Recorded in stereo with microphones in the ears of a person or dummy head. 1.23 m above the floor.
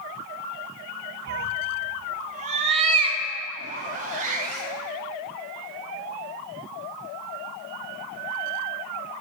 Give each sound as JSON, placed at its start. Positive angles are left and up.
{"t": 1.3, "sound": "a cat meowing", "side_deg": -55, "distance_m": 0.8}
{"t": 3.6, "sound": "a zipper", "side_deg": -45, "distance_m": 1.5}